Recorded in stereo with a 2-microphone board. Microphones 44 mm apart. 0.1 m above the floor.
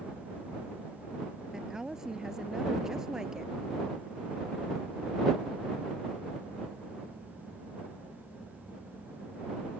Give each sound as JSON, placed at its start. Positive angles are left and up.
{"t": 1.5, "sound": "a woman speaking", "side_deg": -15}